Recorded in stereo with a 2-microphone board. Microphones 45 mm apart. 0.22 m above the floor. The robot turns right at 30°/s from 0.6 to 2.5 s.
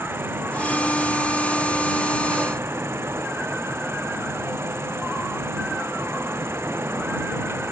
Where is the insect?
120° right; by 7.7 s 65° right.